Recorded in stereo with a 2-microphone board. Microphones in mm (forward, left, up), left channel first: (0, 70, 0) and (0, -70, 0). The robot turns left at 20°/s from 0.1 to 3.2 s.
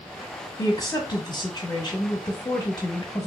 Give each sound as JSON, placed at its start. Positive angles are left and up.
{"t": 0.6, "sound": "a woman speaking", "side_deg": 25, "distance_m": 1.1}